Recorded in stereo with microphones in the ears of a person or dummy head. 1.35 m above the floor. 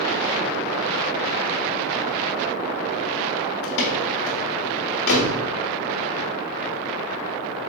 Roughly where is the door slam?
Left.